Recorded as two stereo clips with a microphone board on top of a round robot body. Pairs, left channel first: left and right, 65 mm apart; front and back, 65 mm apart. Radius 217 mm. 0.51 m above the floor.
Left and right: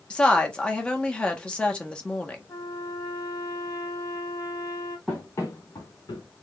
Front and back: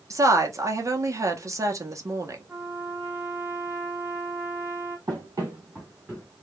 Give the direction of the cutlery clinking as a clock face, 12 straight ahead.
I don't hear cutlery clinking.